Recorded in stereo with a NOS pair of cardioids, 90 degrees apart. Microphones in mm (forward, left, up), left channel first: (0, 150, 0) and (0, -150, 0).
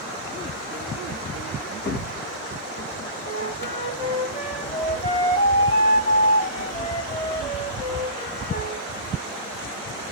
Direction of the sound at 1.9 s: 35° left.